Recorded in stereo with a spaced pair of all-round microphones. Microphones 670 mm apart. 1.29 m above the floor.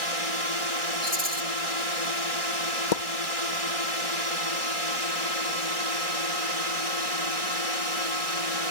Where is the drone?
55° right (ahead or behind).